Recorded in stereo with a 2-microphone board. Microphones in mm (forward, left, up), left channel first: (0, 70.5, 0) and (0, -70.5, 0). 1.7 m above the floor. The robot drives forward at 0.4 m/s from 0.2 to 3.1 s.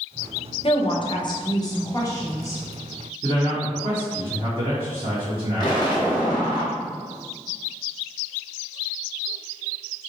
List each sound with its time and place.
0.6 s a woman speaking: 45° left (ahead or behind), 0.7 m; by 2.6 s 20° left (ahead or behind), 1.4 m
3.2 s a man speaking: 40° right (ahead or behind), 1.2 m
5.6 s an explosion: 35° left (ahead or behind), 0.9 m